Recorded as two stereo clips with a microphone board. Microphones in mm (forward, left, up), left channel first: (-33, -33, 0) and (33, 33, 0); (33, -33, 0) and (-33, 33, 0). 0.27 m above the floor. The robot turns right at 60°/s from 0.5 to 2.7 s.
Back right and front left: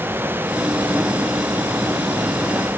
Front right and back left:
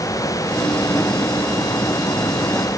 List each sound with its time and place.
Only background noise.